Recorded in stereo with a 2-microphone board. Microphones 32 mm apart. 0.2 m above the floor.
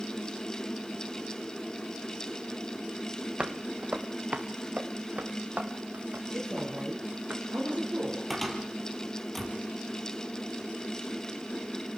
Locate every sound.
3.4 s footsteps: 35° right (ahead or behind), 2 m; by 7.3 s 55° right (ahead or behind), 4.5 m
6.3 s a woman speaking: 50° right (ahead or behind), 4 m
8.3 s a cupboard door: centre (ahead or behind), 3 m